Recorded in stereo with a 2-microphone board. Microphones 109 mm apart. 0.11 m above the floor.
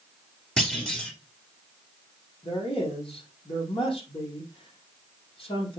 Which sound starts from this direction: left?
A man speaking, at 2.4 s.